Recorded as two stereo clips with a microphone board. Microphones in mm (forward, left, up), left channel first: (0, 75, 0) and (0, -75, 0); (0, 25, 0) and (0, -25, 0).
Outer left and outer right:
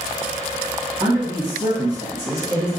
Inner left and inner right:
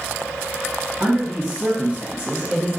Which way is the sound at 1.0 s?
25° right (ahead or behind).